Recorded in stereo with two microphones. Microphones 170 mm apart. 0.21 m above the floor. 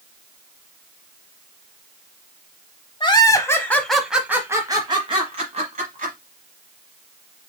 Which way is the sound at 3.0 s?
30° left (ahead or behind).